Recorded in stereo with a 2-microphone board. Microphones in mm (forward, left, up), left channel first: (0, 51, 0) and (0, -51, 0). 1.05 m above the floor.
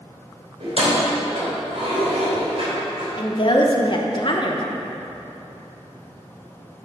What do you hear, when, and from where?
0.6 s keys jangling: 65° right (ahead or behind), 2.5 m
3.2 s a woman speaking: 45° left (ahead or behind), 1.0 m